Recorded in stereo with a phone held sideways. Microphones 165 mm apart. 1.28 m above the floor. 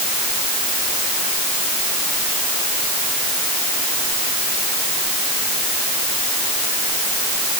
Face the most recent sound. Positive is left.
No sound to turn to.